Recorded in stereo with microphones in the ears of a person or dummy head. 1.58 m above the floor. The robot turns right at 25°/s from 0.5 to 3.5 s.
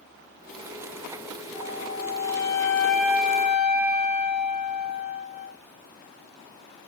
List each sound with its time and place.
1.5 s a flute: 145° left, 0.9 m; by 5.5 s 170° right, 0.9 m